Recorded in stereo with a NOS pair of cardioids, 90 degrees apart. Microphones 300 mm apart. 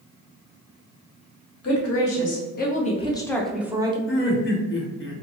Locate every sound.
1.6 s a woman speaking: 55° left, 1.3 m; by 4.0 s 15° right, 0.9 m
4.1 s laughter: 40° left, 1.2 m